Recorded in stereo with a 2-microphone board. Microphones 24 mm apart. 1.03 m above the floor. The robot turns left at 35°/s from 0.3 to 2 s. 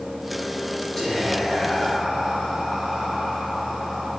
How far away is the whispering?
About 0.9 m.